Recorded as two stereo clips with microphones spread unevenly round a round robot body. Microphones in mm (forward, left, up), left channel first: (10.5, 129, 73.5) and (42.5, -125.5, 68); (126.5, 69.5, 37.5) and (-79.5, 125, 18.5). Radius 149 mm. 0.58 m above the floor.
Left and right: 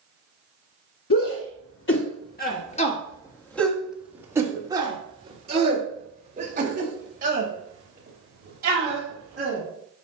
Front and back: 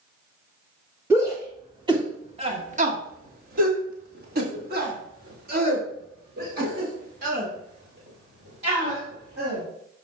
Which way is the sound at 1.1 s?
90° left.